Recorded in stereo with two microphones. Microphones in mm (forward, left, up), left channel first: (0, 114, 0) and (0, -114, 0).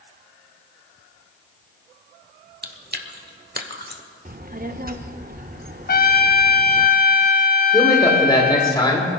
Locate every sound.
2.6 s chewing: 45° right (ahead or behind), 1.0 m
4.2 s a child speaking: 40° right (ahead or behind), 0.7 m
5.9 s a trumpet: 45° left (ahead or behind), 0.5 m
7.7 s a man speaking: 20° left (ahead or behind), 3 m